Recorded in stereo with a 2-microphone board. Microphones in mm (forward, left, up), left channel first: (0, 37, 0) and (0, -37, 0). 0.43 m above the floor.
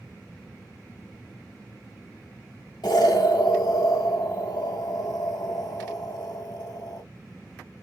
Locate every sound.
2.8 s an explosion: 70° left (ahead or behind), 1.2 m